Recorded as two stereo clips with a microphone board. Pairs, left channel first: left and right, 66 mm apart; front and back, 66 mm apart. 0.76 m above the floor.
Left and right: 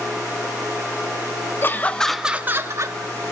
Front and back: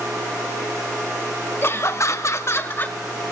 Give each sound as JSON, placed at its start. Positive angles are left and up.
{"t": 1.6, "sound": "laughter", "azimuth_deg": 40, "distance_m": 1.4}